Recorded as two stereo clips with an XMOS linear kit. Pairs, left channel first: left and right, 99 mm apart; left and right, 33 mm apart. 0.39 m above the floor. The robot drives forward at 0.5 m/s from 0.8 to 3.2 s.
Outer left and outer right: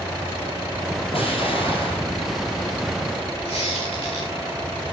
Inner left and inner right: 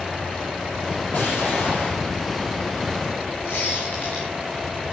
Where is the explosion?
70° left (ahead or behind), 8 m; by 2.1 s 65° left (ahead or behind), 8.5 m.